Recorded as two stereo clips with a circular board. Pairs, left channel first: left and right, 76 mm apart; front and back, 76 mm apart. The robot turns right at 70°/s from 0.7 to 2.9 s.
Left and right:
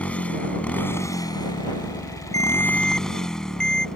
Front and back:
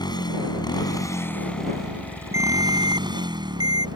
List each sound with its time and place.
0.0 s a motorcycle: 15° left; by 4.0 s 170° left
2.3 s a ringtone: 130° left; by 3.9 s 170° left